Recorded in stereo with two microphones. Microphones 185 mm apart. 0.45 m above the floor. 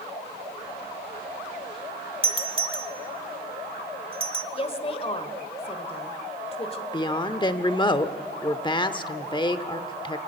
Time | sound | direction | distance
2.2 | a doorbell | 30° right (ahead or behind) | 1.4 m
4.5 | a woman speaking | 30° left (ahead or behind) | 1.8 m
6.9 | a woman speaking | 25° left (ahead or behind) | 0.8 m